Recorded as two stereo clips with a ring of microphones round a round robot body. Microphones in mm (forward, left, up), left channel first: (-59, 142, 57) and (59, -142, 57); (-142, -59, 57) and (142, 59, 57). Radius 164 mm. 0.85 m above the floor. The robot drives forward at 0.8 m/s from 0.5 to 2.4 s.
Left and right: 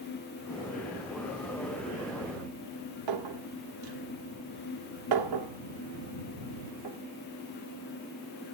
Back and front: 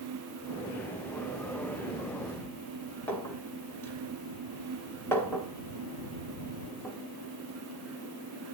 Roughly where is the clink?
Right.